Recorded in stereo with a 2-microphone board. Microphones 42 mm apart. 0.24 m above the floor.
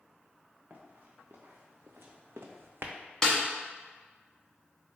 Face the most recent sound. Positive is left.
turn(degrees=15)  # may be behind; listen again after turning